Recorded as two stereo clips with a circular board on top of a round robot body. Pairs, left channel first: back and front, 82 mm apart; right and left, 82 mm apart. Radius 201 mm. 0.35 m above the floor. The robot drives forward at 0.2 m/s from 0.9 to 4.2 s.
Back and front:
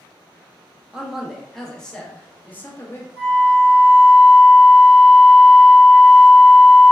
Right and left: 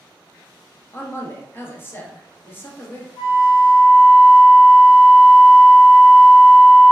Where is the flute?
110° right, 1.0 m; by 6.9 s 120° right, 1.1 m.